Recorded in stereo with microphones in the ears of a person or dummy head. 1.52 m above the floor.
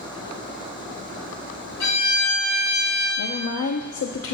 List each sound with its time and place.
1.8 s a violin: 70° left (ahead or behind), 2 m
3.2 s a woman speaking: 75° left (ahead or behind), 0.5 m